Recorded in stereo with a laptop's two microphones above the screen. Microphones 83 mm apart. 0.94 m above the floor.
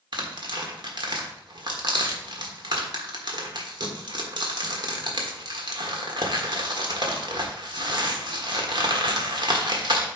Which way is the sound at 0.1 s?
65° right (ahead or behind).